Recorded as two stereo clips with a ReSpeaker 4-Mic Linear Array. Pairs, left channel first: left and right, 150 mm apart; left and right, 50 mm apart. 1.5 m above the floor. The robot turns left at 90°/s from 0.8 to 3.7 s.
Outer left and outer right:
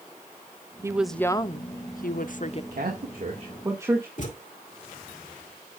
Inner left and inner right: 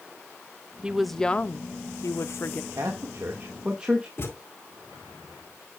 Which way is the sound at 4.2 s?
55° left (ahead or behind).